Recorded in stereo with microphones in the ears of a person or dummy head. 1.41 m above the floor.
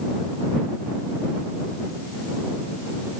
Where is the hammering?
I don't hear hammering.